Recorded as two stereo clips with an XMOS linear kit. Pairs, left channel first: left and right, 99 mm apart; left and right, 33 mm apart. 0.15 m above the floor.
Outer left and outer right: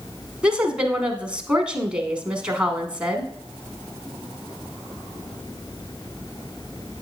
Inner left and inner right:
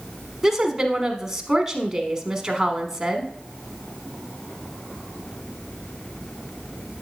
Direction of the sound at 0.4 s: 10° right (ahead or behind).